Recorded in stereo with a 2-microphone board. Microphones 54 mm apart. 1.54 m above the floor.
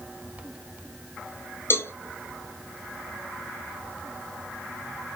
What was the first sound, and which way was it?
A cowbell, 45° left (ahead or behind).